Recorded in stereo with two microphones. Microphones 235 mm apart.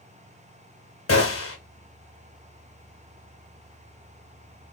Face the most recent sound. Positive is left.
turn(degrees=70)  # may be behind; listen again after turning